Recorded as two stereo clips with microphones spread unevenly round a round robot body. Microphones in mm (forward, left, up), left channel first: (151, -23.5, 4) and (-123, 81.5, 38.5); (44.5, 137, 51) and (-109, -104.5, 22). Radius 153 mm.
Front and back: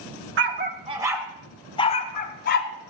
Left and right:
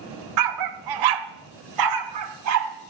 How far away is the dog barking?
About 0.8 m.